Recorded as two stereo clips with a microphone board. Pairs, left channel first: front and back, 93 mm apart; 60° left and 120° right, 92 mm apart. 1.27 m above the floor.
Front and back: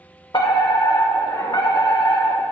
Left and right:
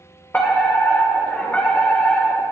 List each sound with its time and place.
0.3 s a fire alarm: 10° right, 1.9 m